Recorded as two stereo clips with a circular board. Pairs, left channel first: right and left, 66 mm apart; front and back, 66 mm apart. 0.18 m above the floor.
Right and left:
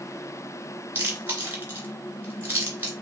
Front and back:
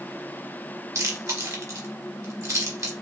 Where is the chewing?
145° left, 2 m.